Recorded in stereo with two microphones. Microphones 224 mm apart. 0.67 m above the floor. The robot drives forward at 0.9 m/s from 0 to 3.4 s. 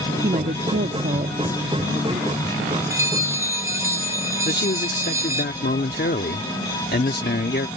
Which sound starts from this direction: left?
A man speaking, at 4.5 s.